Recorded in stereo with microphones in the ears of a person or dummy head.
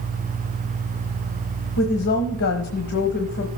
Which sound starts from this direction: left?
A woman speaking, at 1.8 s.